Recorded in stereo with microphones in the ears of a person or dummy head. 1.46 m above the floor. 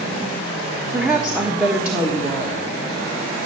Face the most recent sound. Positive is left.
turn(degrees=-5)  # may be behind; listen again after turning